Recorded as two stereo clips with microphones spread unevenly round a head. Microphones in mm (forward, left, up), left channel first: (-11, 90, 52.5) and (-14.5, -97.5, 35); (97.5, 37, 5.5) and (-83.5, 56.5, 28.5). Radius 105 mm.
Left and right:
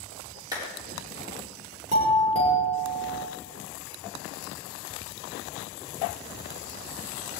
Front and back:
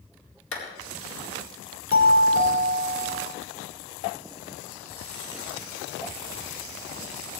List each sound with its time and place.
0.5 s a clap: 20° right, 4 m
1.9 s a doorbell: 35° right, 5 m